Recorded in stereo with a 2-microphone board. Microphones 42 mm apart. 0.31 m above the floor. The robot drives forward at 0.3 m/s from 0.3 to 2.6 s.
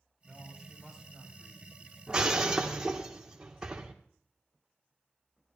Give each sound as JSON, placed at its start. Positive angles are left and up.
{"t": 0.2, "sound": "a man speaking", "side_deg": 5, "distance_m": 6.0}
{"t": 2.1, "sound": "breaking glass", "side_deg": -15, "distance_m": 2.0}